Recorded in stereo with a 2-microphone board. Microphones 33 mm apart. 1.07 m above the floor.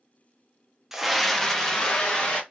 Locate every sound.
0.9 s a scream: 10° right (ahead or behind), 0.5 m; by 2.4 s 30° left (ahead or behind), 1.3 m